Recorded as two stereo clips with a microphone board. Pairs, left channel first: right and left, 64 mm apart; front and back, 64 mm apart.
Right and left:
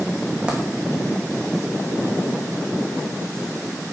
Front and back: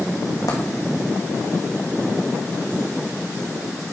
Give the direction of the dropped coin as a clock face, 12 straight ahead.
12 o'clock.